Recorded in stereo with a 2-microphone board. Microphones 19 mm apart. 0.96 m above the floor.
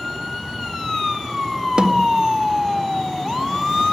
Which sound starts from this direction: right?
A snare drum, at 1.8 s.